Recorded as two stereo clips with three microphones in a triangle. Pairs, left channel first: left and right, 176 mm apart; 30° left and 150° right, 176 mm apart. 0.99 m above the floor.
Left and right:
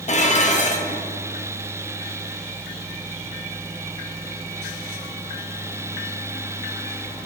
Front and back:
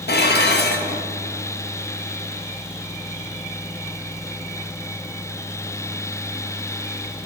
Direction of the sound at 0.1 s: 45° left.